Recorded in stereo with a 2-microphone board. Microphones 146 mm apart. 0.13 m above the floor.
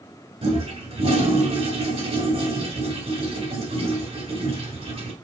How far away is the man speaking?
I don't hear a man speaking.